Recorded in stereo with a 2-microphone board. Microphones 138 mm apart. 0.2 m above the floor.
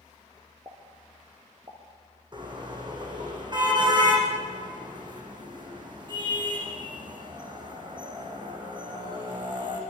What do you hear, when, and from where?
0.7 s a pop: 30° right (ahead or behind), 5 m
2.3 s a car horn: 35° right (ahead or behind), 7 m